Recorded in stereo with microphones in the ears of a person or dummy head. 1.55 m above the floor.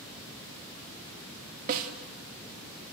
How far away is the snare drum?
About 2.5 m.